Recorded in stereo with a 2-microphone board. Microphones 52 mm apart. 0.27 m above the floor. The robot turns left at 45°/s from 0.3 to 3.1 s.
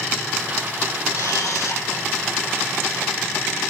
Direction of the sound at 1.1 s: 90° left.